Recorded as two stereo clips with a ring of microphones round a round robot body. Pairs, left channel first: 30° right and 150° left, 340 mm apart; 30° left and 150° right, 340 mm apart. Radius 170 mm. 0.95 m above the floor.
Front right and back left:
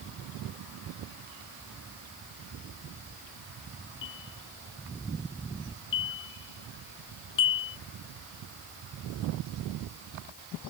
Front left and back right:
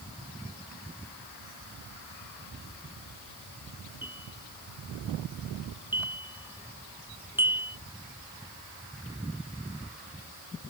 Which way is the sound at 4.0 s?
65° right.